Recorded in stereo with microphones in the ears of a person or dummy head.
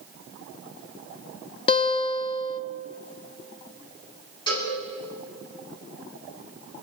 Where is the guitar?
30° left (ahead or behind), 0.9 m.